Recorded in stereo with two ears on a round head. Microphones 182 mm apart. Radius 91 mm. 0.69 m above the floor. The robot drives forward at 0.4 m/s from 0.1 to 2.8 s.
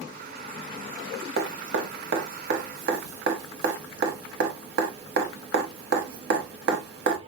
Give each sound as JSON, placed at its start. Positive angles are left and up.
{"t": 1.4, "sound": "dripping", "side_deg": -50, "distance_m": 1.0}